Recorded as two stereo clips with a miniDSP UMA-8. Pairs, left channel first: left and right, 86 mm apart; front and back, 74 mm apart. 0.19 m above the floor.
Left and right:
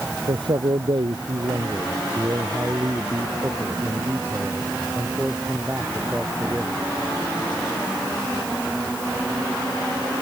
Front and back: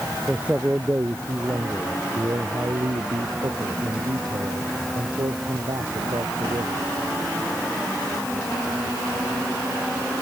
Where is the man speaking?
105° right; by 6.9 s 165° right.